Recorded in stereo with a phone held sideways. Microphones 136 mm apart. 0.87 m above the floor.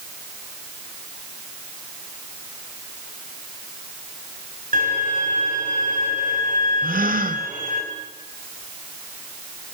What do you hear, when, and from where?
4.7 s a violin: 70° right (ahead or behind), 5.5 m
6.8 s a gasp: 75° right (ahead or behind), 1.4 m